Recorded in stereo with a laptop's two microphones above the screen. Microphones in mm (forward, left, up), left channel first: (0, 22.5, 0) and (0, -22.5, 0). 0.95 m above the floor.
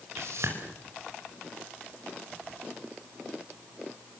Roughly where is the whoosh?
Right.